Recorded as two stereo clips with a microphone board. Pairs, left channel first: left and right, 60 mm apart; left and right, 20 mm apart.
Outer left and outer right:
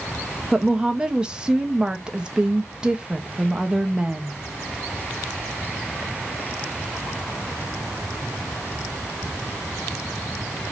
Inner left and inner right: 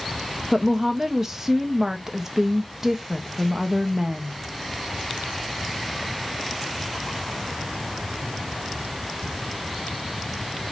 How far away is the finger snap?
No finger snap in this recording.